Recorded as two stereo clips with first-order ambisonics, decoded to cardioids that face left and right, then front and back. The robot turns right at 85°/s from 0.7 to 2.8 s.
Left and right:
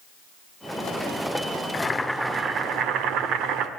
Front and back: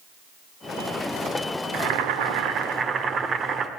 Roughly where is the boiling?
Behind left.